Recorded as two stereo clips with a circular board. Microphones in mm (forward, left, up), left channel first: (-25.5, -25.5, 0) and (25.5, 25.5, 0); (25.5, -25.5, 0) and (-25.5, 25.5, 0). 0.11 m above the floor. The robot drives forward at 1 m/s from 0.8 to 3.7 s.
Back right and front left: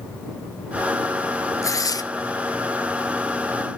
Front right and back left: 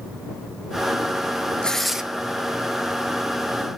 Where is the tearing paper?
115° right, 0.7 m; by 2.0 s 145° right, 1.0 m.